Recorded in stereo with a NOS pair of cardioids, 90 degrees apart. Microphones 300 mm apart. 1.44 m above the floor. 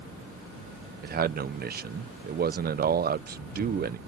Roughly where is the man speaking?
Ahead right.